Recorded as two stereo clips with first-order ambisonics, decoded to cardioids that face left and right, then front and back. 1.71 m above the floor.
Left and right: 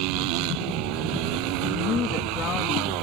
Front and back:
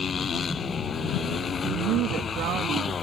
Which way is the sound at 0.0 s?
70° right.